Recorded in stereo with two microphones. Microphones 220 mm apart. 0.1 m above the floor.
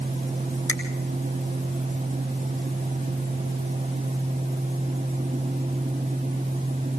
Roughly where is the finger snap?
Left.